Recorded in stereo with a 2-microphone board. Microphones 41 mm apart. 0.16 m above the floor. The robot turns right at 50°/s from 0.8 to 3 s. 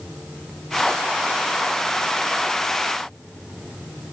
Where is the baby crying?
No baby crying in this recording.